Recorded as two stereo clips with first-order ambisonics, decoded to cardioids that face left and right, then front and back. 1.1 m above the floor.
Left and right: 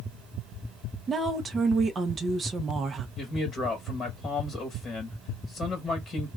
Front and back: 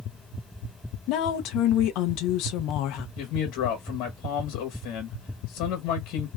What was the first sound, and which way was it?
A woman speaking, 25° right.